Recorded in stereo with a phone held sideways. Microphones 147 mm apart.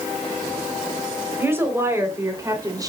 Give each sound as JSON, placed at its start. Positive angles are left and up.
{"t": 1.4, "sound": "a woman speaking", "side_deg": -15, "distance_m": 4.5}